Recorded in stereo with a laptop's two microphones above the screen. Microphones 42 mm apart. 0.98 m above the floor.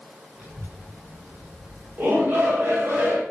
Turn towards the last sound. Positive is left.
turn(degrees=-60)  # may be behind; listen again after turning